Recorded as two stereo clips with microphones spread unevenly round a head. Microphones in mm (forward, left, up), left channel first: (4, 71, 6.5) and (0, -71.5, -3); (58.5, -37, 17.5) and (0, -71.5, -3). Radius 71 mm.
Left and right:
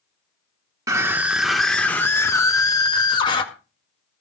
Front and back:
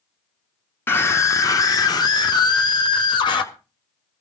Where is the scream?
35° right, 1.0 m; by 3.4 s 30° left, 1.9 m.